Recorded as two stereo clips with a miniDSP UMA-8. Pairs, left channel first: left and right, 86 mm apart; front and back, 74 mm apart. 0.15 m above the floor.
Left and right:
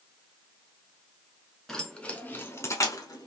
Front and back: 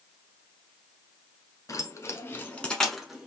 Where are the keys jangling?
5° left, 1.0 m; by 3.3 s 100° left, 1.0 m.